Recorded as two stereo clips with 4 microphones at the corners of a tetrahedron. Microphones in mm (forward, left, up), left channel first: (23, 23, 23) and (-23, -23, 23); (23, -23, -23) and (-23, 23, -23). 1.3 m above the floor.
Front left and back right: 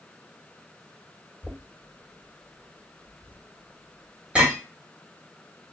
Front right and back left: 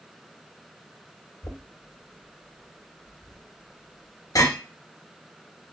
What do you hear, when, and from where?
1.4 s knocking: 65° right, 1.3 m